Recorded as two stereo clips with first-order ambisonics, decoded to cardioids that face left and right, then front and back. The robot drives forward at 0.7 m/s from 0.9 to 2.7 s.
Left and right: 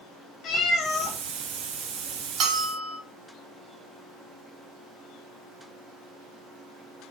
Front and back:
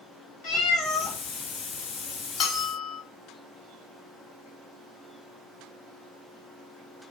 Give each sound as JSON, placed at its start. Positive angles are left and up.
{"t": 0.4, "sound": "a cat meowing", "azimuth_deg": 35, "distance_m": 1.4}
{"t": 2.4, "sound": "a bell", "azimuth_deg": -55, "distance_m": 0.8}